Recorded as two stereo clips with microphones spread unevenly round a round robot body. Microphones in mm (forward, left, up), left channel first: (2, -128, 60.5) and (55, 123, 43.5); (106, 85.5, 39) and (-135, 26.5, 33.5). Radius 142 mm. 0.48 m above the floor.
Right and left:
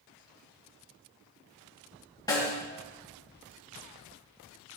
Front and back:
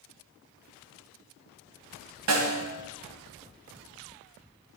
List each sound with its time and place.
2.3 s a snare drum: straight behind, 1.5 m